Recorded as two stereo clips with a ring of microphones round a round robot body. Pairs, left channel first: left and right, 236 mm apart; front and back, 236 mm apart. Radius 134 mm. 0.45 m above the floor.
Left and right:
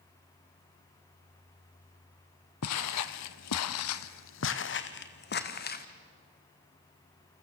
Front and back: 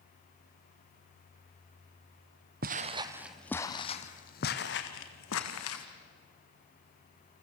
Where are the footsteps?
125° left, 0.9 m; by 5.8 s 40° left, 2.0 m.